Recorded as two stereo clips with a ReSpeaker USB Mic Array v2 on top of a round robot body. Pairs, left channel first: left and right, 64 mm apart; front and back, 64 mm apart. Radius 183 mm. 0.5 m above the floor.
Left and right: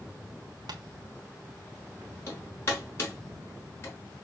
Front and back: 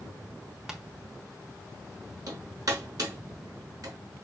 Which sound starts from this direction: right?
Tapping, at 0.7 s.